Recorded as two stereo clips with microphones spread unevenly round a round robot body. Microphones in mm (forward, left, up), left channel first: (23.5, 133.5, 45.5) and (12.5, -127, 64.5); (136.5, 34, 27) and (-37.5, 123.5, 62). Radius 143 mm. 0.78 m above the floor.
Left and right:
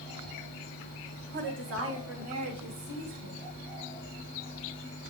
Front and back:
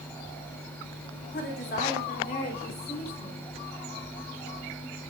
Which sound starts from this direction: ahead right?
A woman speaking, at 1.3 s.